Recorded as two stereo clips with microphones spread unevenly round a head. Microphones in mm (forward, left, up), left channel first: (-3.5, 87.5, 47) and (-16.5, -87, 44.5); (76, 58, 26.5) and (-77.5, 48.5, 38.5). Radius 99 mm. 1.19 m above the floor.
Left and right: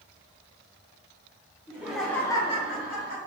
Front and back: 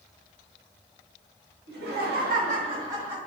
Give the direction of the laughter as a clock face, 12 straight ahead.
6 o'clock.